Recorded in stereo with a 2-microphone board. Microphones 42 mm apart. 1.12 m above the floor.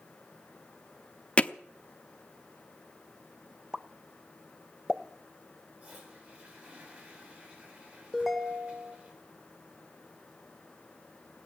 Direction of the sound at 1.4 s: 30° left (ahead or behind).